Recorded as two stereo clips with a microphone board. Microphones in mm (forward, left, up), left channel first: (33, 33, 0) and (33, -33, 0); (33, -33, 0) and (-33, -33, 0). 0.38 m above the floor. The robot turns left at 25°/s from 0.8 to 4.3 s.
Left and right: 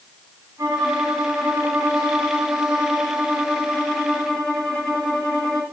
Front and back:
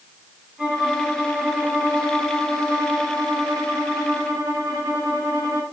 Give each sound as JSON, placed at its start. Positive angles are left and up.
{"t": 0.6, "sound": "a violin", "azimuth_deg": -100, "distance_m": 2.5}